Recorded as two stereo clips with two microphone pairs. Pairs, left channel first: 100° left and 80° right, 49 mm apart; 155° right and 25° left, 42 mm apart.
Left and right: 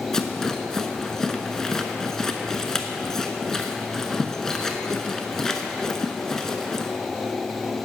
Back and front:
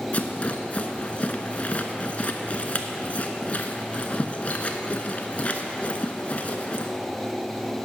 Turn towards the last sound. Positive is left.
turn(degrees=170)